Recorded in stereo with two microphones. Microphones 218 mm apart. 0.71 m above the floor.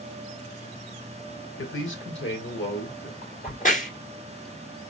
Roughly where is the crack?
Left.